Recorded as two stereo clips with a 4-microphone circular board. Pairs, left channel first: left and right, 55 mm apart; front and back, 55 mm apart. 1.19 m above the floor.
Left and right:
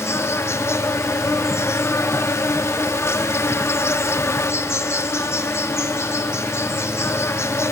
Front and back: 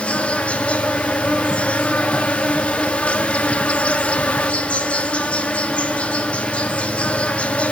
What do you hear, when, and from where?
0.0 s an insect: 65° left, 0.9 m